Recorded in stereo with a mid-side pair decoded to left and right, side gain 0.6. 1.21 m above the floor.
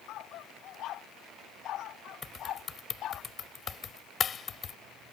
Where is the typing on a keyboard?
35° left.